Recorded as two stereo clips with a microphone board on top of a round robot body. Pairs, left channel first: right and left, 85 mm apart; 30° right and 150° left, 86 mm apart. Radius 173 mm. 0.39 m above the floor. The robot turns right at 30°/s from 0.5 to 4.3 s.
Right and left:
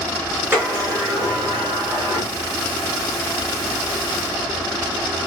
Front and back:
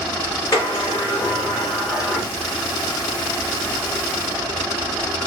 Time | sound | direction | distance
0.5 | a sliding door | 20° left | 3 m